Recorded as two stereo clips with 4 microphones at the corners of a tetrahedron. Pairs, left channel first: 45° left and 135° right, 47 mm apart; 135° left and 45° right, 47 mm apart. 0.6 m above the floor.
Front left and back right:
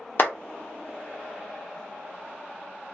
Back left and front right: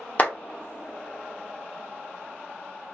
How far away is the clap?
About 0.8 m.